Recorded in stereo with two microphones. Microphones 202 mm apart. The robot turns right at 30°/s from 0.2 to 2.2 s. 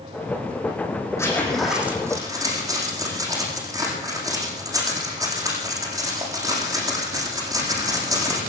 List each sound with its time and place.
1.2 s a zipper: 15° left (ahead or behind), 8.5 m; by 8.4 s 15° right (ahead or behind), 8.5 m